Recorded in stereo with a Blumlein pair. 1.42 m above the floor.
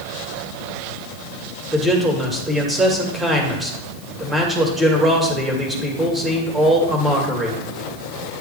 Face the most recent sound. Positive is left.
turn(degrees=-5)